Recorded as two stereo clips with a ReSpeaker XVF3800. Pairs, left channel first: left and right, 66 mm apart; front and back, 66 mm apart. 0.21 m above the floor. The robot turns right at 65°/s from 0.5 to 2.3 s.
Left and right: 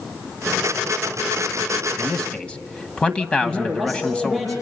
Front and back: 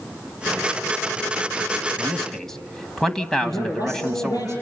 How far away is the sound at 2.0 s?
About 1.2 m.